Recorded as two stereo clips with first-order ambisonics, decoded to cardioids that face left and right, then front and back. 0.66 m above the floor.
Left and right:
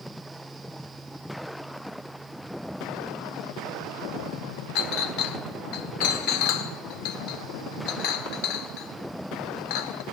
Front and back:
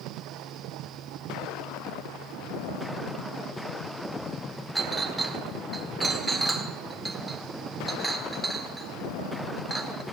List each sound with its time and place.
4.8 s a clink: 95° left, 0.8 m